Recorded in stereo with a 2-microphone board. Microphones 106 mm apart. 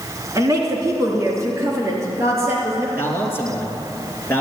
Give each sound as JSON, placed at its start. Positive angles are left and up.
{"t": 0.3, "sound": "a woman speaking", "side_deg": -30, "distance_m": 3.0}
{"t": 3.0, "sound": "a man speaking", "side_deg": 20, "distance_m": 3.0}